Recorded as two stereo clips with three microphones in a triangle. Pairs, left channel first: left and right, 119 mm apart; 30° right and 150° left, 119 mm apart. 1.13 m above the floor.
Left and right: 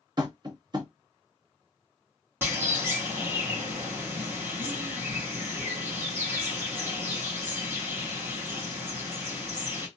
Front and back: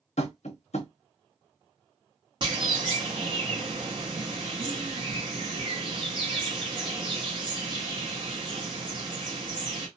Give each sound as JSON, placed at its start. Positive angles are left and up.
{"t": 0.2, "sound": "tapping", "azimuth_deg": -35, "distance_m": 0.9}
{"t": 2.4, "sound": "a bird", "azimuth_deg": -160, "distance_m": 1.3}